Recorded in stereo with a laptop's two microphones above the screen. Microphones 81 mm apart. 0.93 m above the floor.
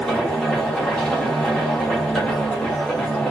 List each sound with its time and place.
0.0 s a machine running: 10° left (ahead or behind), 1.2 m